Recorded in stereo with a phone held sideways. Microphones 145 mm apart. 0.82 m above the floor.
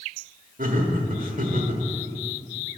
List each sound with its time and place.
0.6 s laughter: 75° right (ahead or behind), 1.2 m